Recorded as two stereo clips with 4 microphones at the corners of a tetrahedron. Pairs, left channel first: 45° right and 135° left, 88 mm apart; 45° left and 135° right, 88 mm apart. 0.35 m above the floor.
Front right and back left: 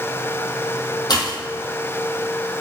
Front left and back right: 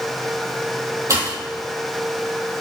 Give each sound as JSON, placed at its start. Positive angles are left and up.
{"t": 1.1, "sound": "a pop", "azimuth_deg": -85, "distance_m": 2.5}